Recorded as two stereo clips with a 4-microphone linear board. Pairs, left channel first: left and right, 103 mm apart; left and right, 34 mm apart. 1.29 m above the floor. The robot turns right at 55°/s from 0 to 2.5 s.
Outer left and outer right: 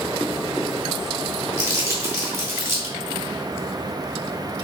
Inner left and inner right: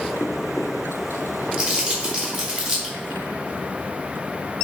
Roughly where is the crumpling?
Right.